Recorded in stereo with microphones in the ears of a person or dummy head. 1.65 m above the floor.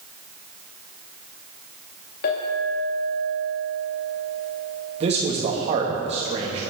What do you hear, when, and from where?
2.2 s a clink: 55° left (ahead or behind), 2.0 m
5.0 s a man speaking: 40° right (ahead or behind), 2.5 m